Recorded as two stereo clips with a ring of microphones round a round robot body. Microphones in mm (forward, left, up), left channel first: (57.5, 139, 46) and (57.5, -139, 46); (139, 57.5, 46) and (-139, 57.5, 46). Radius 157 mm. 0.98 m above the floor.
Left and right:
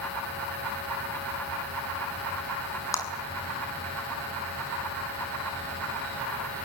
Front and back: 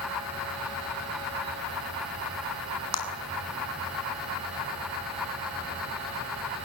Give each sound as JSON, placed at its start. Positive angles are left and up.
{"t": 2.9, "sound": "a clap", "azimuth_deg": 10, "distance_m": 7.5}